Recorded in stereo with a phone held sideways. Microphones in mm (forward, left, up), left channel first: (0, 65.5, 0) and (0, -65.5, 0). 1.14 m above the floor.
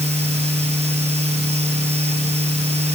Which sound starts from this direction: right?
A fan, at 0.0 s.